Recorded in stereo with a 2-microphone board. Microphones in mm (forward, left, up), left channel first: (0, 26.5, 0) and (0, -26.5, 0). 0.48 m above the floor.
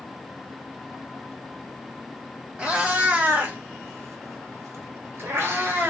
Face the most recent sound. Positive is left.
turn(degrees=-40)  # may be behind; listen again after turning